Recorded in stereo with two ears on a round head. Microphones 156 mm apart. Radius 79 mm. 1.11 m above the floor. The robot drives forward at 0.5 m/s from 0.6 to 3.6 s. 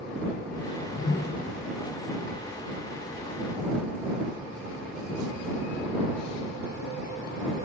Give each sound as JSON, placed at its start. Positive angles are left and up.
{"t": 0.8, "sound": "a whoosh", "side_deg": 75, "distance_m": 0.5}